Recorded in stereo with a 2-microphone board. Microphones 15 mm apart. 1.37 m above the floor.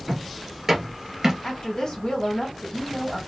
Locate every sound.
0.1 s footsteps: 10° right (ahead or behind), 1.5 m; by 1.3 s 35° right (ahead or behind), 1.5 m
1.4 s a woman speaking: 45° left (ahead or behind), 1.8 m